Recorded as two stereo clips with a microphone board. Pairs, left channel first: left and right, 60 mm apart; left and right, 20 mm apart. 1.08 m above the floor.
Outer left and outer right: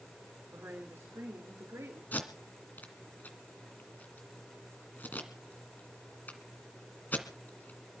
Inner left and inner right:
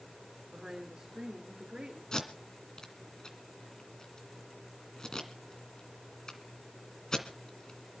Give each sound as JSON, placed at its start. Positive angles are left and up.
{"t": 0.5, "sound": "a woman speaking", "side_deg": -45, "distance_m": 3.5}
{"t": 2.1, "sound": "tape being pulled", "side_deg": 30, "distance_m": 2.0}